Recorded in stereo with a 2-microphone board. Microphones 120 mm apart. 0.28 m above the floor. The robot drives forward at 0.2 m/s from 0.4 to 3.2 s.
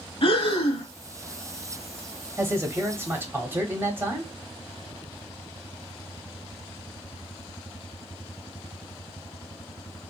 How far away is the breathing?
About 0.8 m.